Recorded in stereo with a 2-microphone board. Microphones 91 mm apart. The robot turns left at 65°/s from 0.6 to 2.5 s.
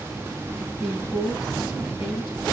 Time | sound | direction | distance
0.8 | a woman speaking | 175° left | 5.5 m